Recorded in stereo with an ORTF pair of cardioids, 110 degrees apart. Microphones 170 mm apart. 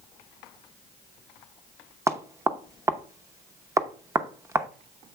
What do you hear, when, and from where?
2.1 s knocking: 15° right, 0.7 m